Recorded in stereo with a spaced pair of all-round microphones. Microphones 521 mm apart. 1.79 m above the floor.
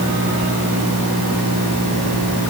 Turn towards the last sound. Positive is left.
No sound to turn to.